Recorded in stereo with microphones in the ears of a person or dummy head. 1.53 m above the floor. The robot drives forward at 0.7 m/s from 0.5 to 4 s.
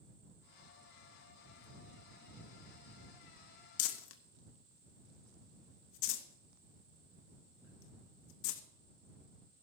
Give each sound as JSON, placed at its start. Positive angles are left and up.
{"t": 3.8, "sound": "crumpling", "side_deg": 75, "distance_m": 0.9}